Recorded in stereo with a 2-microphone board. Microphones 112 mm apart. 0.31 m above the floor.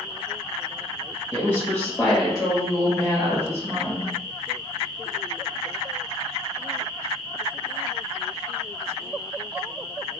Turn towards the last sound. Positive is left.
turn(degrees=-35)  # may be behind; listen again after turning